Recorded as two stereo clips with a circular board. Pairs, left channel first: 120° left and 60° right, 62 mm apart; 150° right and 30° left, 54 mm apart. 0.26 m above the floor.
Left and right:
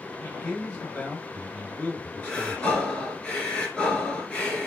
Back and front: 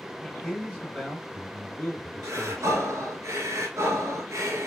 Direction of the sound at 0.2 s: 140° left.